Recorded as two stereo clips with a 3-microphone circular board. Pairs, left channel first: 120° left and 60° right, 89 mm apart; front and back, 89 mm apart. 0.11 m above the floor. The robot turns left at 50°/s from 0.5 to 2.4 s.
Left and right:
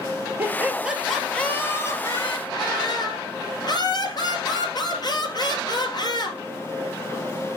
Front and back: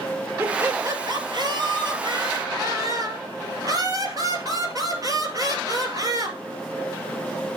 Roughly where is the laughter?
Behind right.